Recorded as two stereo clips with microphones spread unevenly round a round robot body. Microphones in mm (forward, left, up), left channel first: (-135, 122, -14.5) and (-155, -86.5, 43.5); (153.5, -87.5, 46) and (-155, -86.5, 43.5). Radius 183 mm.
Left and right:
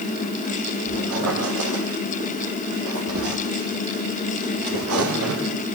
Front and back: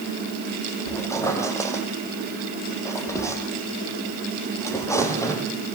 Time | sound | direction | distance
0.9 | a squeak | 80° right | 6 m